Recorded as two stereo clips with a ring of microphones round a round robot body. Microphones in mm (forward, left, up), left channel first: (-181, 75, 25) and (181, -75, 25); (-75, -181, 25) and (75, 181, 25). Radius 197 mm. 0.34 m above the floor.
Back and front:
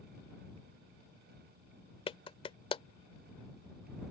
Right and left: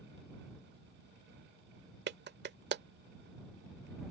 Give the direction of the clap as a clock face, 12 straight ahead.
9 o'clock.